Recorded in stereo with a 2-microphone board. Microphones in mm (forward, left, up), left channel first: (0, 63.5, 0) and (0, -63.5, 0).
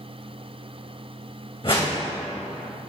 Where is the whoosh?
45° left (ahead or behind), 3 m.